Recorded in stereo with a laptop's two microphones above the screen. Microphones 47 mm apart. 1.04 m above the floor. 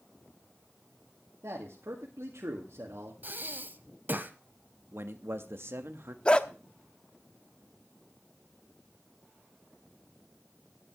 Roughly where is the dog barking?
Left.